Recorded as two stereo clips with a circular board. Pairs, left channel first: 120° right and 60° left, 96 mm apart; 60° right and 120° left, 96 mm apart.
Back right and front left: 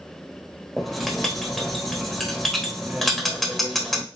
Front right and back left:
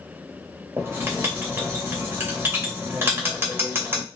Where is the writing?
155° left, 1.1 m.